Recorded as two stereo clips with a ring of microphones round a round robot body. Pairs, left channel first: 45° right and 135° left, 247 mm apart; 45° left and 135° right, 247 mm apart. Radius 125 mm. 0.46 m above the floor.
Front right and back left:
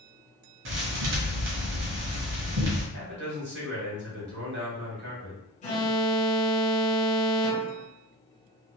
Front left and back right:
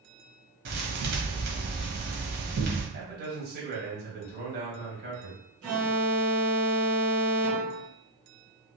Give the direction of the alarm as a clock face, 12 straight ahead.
4 o'clock.